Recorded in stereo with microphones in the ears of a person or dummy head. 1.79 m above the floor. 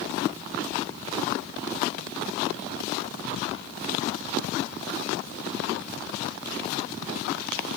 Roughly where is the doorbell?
I don't hear a doorbell.